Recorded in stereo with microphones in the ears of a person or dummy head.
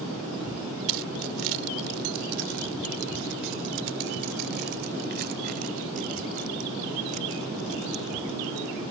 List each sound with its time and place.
0.9 s keys jangling: 80° right; by 8.8 s 35° right (ahead or behind)